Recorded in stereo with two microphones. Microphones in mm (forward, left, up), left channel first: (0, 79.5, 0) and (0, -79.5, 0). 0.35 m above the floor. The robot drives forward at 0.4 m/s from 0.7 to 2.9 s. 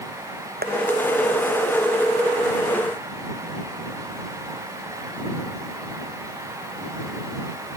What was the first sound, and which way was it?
Tapping, 80° right.